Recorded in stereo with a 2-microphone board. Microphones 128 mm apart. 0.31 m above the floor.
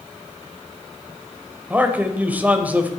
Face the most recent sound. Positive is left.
turn(degrees=-10)  # may be behind; listen again after turning